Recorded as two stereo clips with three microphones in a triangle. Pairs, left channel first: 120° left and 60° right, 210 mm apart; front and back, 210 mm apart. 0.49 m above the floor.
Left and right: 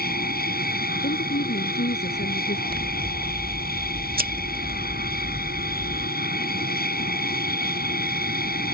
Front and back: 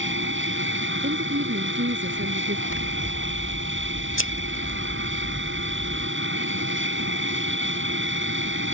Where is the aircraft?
160° left.